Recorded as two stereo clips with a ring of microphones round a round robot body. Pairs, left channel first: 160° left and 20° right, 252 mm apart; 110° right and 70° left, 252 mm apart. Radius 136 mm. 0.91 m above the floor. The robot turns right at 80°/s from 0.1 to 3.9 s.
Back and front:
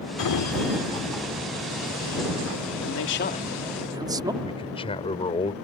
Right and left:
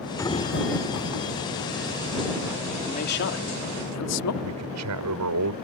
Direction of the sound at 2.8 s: 175° left.